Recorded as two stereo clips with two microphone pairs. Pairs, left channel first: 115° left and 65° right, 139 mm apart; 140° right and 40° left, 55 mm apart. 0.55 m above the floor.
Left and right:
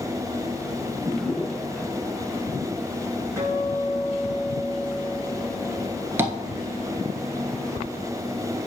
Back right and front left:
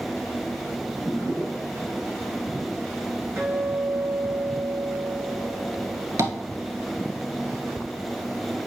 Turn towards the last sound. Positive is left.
turn(degrees=10)